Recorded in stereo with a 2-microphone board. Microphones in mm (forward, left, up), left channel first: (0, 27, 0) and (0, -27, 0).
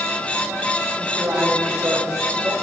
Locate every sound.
1.0 s a man speaking: 25° right (ahead or behind), 6.5 m; by 2.5 s 15° right (ahead or behind), 6 m